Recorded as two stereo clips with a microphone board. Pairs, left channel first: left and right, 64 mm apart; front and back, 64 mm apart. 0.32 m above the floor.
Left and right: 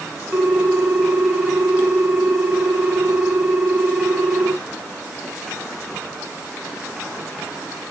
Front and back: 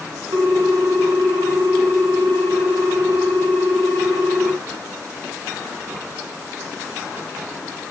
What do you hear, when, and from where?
0.3 s a ringtone: 170° right, 3.5 m